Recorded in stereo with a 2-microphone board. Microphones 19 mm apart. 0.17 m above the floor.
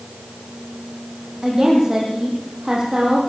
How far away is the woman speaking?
About 7 m.